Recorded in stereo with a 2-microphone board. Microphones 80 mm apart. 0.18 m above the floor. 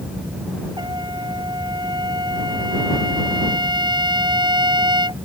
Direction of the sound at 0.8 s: 65° right (ahead or behind).